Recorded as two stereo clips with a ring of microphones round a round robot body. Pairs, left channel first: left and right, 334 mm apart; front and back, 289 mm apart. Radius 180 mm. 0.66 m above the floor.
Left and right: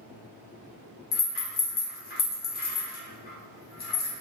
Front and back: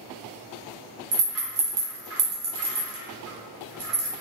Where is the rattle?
150° left, 1.0 m.